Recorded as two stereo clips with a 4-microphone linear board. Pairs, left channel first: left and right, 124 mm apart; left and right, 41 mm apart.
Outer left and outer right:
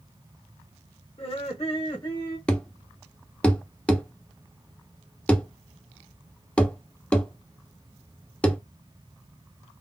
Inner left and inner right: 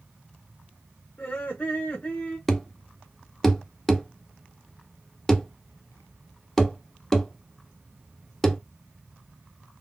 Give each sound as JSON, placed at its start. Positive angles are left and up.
{"t": 1.2, "sound": "laughter", "side_deg": 60, "distance_m": 1.3}
{"t": 2.5, "sound": "a thud", "side_deg": 10, "distance_m": 0.6}